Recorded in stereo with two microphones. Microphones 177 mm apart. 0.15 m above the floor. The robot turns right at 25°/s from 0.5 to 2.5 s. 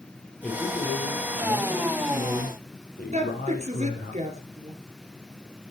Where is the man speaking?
5° left, 4 m; by 4.1 s 55° left, 4 m.